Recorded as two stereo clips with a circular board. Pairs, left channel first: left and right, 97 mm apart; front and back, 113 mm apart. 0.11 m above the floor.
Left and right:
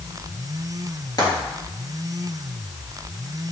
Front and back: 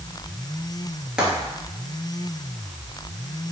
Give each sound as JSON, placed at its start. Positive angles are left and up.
{"t": 1.2, "sound": "frying", "azimuth_deg": 100, "distance_m": 1.8}